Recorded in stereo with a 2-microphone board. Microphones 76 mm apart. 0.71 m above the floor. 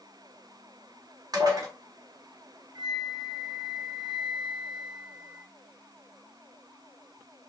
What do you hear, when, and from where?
1.3 s dishes clattering: 55° right (ahead or behind), 1.4 m
2.8 s a flute: 60° right (ahead or behind), 0.8 m